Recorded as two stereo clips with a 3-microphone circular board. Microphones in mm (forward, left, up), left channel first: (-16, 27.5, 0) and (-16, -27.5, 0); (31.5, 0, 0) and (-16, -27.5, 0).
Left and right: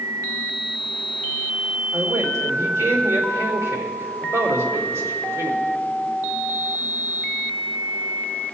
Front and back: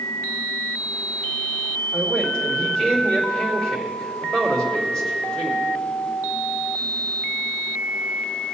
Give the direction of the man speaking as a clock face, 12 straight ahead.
2 o'clock.